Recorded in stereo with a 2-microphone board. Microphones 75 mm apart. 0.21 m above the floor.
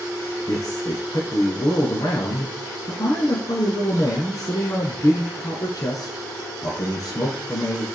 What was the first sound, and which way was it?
A man speaking, 50° left (ahead or behind).